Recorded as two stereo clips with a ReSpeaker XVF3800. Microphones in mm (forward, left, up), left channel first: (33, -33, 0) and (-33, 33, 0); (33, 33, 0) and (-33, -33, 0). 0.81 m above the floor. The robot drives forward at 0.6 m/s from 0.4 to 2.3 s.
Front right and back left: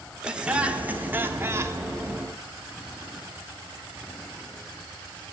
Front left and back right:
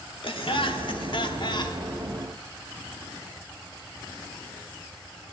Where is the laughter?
55° left, 2 m; by 1.8 s 80° left, 1.8 m.